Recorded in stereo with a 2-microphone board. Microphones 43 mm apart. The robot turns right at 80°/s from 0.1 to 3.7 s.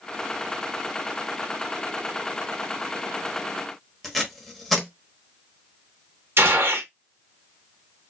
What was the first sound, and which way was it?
Tape being pulled, centre (ahead or behind).